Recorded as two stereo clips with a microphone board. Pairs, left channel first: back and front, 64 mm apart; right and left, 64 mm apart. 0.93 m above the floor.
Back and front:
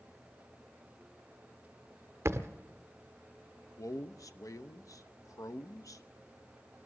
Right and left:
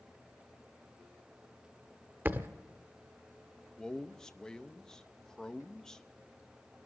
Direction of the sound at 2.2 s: 35° left.